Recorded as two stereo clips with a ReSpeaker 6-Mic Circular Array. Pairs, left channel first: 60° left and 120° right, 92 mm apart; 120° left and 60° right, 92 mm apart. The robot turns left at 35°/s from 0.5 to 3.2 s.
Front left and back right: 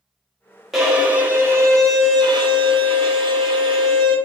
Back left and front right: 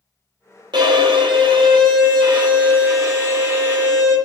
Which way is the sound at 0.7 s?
30° right.